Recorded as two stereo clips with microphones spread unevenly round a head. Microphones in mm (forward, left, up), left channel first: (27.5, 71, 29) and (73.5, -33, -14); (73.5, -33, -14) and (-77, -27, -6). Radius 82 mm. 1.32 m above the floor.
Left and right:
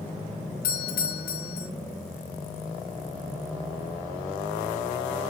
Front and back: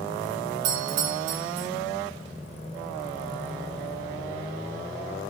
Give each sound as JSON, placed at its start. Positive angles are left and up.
{"t": 0.6, "sound": "a doorbell", "azimuth_deg": 155, "distance_m": 2.0}